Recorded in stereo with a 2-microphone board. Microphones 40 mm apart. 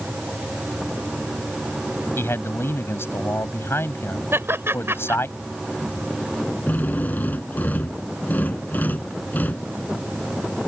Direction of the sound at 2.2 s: 85° left.